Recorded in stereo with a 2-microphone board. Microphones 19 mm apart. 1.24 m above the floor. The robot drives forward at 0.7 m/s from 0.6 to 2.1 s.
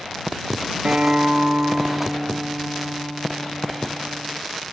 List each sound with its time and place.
0.8 s a guitar: 50° right (ahead or behind), 0.8 m; by 4.4 s 55° right (ahead or behind), 0.7 m